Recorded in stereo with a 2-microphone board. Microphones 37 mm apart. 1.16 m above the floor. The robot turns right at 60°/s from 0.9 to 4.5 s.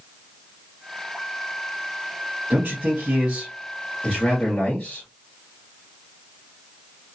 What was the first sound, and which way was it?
A man speaking, 80° right.